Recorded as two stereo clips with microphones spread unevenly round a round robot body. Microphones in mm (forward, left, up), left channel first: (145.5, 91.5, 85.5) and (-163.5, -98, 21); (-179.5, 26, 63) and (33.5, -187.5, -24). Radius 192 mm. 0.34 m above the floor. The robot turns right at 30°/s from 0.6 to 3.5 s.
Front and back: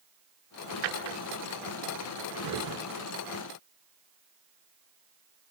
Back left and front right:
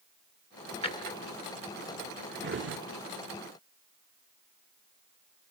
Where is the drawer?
155° right, 1.5 m; by 2.8 s 95° right, 1.5 m.